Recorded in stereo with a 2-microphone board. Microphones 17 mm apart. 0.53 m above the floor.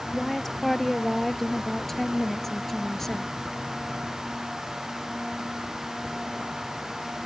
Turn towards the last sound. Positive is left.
turn(degrees=20)  # may be behind; listen again after turning